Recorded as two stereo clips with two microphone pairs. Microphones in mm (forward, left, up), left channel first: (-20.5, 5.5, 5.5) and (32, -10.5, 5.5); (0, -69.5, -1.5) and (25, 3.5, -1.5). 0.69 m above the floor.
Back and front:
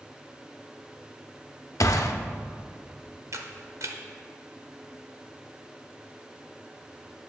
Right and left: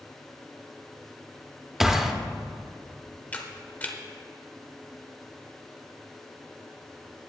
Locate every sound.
1.8 s a gunshot: 160° left, 0.7 m
3.3 s a camera shutter: 40° right, 1.0 m